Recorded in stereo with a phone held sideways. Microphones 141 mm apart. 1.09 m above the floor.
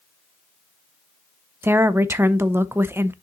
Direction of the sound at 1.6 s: 15° right (ahead or behind).